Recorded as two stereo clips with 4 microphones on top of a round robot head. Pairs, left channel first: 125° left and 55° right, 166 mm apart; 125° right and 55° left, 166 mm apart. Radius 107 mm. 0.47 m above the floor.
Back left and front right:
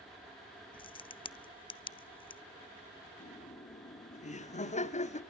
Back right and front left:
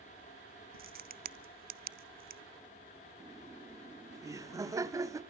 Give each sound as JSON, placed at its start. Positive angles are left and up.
{"t": 0.7, "sound": "a crack", "azimuth_deg": 70, "distance_m": 0.7}
{"t": 3.2, "sound": "laughter", "azimuth_deg": 120, "distance_m": 1.7}